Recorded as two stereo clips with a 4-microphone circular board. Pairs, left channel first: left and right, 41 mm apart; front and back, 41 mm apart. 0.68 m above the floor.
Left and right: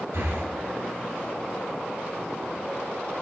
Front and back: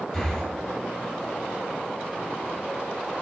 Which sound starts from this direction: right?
Breathing, at 0.1 s.